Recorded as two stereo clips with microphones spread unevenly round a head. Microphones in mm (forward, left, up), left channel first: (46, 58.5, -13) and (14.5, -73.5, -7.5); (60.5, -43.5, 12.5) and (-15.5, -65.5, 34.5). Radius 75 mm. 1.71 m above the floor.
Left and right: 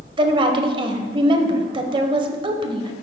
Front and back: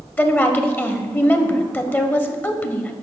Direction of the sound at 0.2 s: 50° right.